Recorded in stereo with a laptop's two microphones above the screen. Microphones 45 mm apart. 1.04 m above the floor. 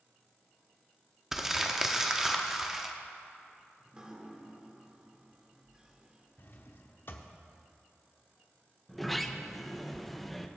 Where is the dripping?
20° right (ahead or behind), 1.4 m.